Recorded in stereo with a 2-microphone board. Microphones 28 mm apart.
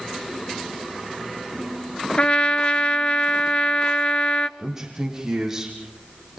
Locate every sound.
2.2 s a trumpet: 40° left (ahead or behind), 0.9 m
4.6 s a man speaking: 15° right (ahead or behind), 6 m